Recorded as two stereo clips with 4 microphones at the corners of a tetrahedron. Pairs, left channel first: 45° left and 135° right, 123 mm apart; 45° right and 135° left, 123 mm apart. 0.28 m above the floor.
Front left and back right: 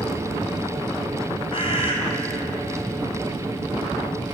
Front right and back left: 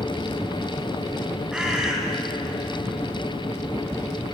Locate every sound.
1.5 s a bird: 55° left, 2.5 m